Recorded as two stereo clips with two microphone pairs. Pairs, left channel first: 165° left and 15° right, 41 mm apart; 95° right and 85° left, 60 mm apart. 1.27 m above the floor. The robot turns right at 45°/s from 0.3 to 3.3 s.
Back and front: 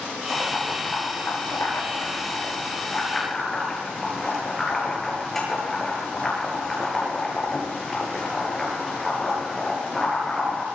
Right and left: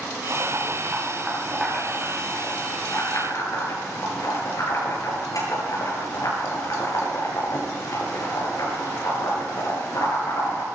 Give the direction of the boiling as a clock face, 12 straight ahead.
8 o'clock.